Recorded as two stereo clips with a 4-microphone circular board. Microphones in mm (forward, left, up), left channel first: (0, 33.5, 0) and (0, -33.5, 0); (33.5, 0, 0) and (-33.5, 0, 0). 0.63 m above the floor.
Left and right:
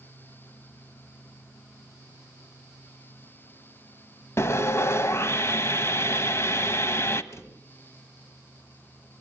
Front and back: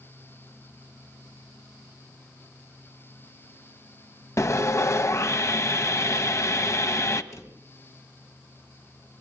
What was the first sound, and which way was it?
Sawing, 45° left.